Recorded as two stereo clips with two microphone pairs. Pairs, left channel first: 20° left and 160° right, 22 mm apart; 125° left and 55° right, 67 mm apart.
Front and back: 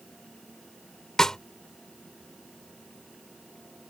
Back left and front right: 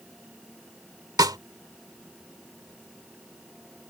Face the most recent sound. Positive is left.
turn(degrees=-45)